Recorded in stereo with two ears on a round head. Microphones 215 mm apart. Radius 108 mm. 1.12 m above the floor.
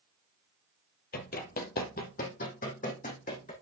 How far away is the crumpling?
I don't hear crumpling.